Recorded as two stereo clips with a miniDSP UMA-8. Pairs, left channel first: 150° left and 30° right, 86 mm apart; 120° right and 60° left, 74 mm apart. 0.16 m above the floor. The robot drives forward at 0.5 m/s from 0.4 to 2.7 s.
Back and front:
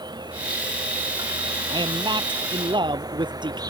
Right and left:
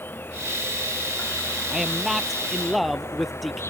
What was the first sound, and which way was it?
An insect, 60° right.